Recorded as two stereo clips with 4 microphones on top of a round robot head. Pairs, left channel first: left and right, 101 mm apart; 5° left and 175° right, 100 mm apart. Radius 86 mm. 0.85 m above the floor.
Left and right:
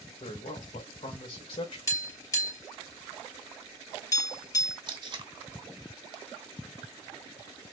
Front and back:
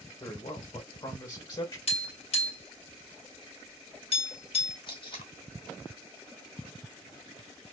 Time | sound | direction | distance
0.2 | a man speaking | 50° left | 3 m
1.9 | tapping | 30° left | 3 m
4.9 | tape being pulled | 50° right | 1.2 m